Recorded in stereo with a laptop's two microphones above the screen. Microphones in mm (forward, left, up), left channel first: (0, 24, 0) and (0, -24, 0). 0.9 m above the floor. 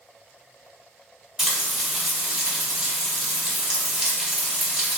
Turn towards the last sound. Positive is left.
turn(degrees=-15)  # may be behind; listen again after turning